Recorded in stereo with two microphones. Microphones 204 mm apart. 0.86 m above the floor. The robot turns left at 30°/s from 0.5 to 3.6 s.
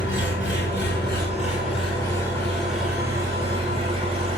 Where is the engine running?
65° left, 4.5 m; by 4.4 s 25° right, 4.5 m.